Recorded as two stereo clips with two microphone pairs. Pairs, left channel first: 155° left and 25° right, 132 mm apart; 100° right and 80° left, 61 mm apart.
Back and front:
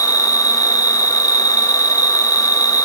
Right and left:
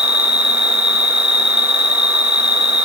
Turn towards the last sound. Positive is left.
turn(degrees=35)